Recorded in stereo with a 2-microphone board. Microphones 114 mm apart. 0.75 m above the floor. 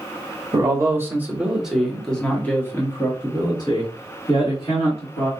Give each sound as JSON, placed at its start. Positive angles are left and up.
{"t": 0.5, "sound": "a man speaking", "side_deg": -30, "distance_m": 1.4}